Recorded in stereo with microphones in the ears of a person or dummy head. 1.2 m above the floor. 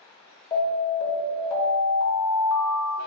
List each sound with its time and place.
0.5 s an alarm: 20° left (ahead or behind), 0.8 m